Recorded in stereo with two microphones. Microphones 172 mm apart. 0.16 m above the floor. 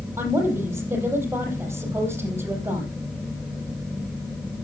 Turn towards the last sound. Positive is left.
turn(degrees=-15)  # may be behind; listen again after turning